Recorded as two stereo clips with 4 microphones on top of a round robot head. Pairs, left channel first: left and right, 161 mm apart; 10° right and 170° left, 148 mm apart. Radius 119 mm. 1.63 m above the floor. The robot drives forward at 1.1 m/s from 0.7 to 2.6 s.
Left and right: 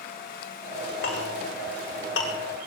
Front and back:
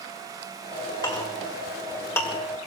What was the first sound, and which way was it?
A clink, 50° left.